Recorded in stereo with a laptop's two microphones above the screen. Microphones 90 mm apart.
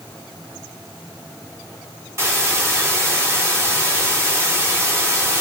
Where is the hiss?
30° right (ahead or behind), 2 m.